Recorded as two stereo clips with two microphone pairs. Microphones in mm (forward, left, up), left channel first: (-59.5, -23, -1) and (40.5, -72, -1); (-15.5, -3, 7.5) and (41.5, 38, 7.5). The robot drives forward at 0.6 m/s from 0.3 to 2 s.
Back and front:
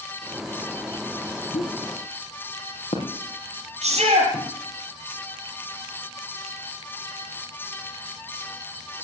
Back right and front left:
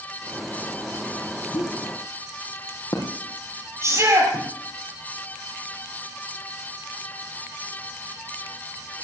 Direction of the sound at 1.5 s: 165° right.